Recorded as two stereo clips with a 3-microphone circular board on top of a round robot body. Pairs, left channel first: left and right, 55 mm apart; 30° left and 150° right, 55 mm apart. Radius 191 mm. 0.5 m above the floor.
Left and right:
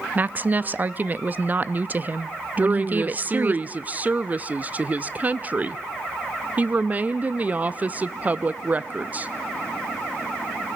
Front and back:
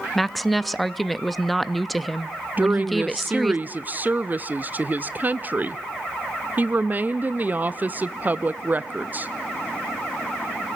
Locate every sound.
0.1 s a woman speaking: 55° right, 0.7 m
2.6 s a woman speaking: 125° right, 0.7 m